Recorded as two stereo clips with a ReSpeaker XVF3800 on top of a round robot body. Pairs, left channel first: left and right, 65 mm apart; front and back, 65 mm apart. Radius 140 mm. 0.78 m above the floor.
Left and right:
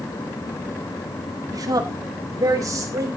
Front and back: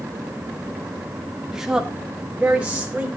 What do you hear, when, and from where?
1.5 s a woman speaking: 100° right, 2 m; by 3.1 s 110° right, 3.5 m